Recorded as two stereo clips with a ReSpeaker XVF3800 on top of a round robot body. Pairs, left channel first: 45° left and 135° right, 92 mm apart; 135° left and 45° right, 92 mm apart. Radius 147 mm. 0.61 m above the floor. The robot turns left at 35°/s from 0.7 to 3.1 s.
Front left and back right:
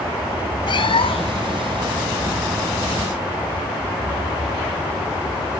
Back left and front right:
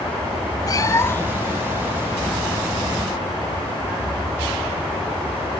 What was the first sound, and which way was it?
A cat meowing, 85° left.